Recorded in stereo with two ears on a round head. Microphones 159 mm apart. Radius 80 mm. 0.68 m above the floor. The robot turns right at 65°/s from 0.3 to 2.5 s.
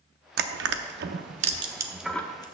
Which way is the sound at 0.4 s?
60° right (ahead or behind).